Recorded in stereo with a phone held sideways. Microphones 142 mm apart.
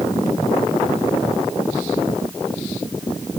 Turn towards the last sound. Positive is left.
No sound to turn to.